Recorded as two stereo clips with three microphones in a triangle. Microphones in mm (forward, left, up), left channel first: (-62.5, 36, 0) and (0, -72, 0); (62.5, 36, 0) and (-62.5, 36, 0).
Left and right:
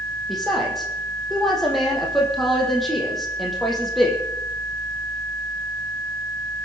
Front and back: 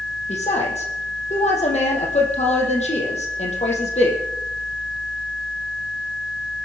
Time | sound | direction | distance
0.3 | a woman speaking | 30° left | 4.5 m